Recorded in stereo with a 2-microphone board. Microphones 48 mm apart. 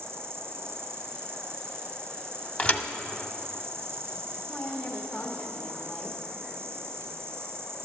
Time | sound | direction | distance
0.0 | an insect | 60° right (ahead or behind) | 1.4 m
2.6 | a thud | 30° left (ahead or behind) | 0.6 m
4.5 | a woman speaking | 25° left (ahead or behind) | 1.1 m